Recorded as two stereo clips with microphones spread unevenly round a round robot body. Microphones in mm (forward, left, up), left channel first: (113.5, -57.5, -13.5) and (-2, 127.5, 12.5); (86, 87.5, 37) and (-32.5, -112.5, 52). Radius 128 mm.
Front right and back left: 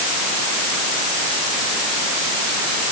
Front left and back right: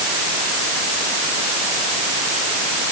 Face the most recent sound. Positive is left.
No sound to turn to.